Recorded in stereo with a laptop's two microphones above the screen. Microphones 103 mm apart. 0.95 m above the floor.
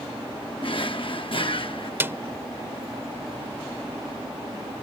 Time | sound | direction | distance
0.6 | a drawer | 55° left (ahead or behind) | ?
2.0 | a snare drum | 25° right (ahead or behind) | ?